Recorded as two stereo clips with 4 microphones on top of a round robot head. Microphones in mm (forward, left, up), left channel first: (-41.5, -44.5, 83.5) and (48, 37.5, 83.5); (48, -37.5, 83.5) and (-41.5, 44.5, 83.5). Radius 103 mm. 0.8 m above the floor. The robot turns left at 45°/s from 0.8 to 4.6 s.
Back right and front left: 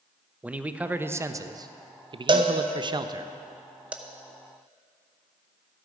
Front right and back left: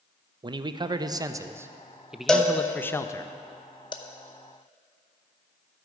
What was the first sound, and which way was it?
A man speaking, 115° left.